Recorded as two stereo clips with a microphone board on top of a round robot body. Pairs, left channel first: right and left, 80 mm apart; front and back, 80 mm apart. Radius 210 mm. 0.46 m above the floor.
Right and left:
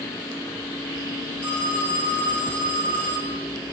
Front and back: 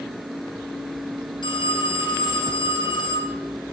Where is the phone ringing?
20° right, 3 m.